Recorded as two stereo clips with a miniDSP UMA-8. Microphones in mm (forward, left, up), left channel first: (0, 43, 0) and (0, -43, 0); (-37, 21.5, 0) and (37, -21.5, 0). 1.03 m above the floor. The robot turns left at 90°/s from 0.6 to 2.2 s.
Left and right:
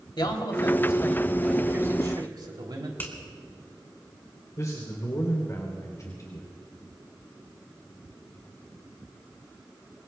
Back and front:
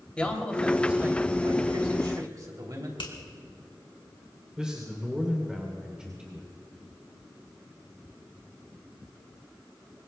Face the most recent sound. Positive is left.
turn(degrees=50)